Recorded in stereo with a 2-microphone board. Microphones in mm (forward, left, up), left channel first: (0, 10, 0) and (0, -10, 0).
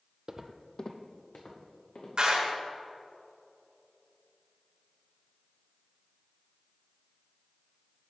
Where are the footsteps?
35° right (ahead or behind), 0.6 m; by 2.1 s 70° left (ahead or behind), 2.5 m.